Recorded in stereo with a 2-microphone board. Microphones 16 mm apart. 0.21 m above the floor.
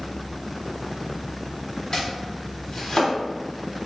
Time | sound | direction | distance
1.9 | chopping | 40° left (ahead or behind) | 1.2 m